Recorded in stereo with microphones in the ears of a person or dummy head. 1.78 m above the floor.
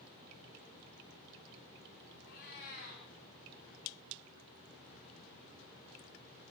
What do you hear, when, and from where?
2.2 s a cat meowing: 60° left (ahead or behind), 10 m